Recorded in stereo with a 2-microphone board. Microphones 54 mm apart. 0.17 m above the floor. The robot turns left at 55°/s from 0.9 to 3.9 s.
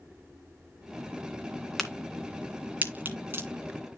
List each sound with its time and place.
1.8 s a crack: 5° left (ahead or behind), 2 m; by 3.5 s 40° right (ahead or behind), 2 m